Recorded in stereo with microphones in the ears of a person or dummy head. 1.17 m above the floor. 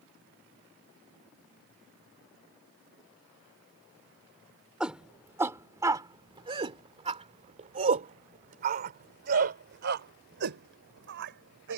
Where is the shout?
5° right (ahead or behind); by 11.8 s 65° right (ahead or behind).